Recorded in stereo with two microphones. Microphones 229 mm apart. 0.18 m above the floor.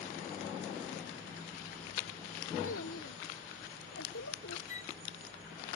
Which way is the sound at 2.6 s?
70° left (ahead or behind).